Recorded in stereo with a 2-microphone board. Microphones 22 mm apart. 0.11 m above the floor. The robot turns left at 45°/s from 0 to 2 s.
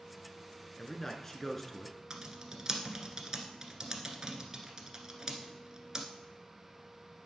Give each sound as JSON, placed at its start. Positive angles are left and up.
{"t": 0.8, "sound": "a man speaking", "side_deg": 20, "distance_m": 1.3}
{"t": 2.1, "sound": "typing on a keyboard", "side_deg": -30, "distance_m": 1.4}